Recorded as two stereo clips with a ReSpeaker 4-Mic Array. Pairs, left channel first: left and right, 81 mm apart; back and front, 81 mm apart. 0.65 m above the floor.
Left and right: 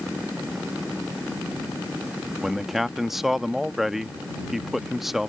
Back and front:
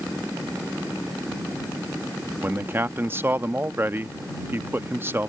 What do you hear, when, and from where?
2.4 s a man speaking: 5° right